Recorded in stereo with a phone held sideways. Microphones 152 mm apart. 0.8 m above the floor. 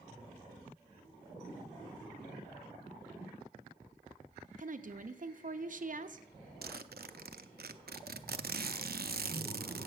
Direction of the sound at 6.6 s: 75° right (ahead or behind).